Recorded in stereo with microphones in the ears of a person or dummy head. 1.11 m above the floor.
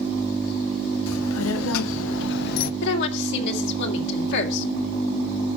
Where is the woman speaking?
70° left (ahead or behind), 3 m.